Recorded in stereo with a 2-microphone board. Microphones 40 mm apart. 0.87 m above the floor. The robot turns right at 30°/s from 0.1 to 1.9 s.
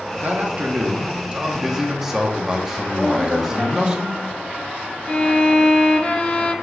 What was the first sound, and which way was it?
A man speaking, 60° right.